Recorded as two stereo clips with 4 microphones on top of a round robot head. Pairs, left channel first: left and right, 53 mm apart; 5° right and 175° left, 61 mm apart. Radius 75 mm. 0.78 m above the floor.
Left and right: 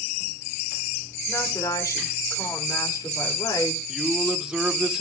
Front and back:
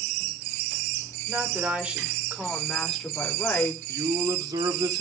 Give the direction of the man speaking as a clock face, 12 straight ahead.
6 o'clock.